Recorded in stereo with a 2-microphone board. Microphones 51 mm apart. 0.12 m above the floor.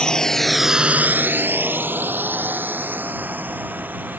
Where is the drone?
15° left (ahead or behind); by 4.2 s 35° right (ahead or behind).